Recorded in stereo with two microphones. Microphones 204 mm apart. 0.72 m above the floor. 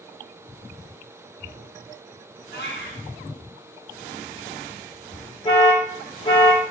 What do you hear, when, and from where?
2.5 s a cat meowing: 55° left (ahead or behind), 3 m
5.5 s an alarm: 25° left (ahead or behind), 2.5 m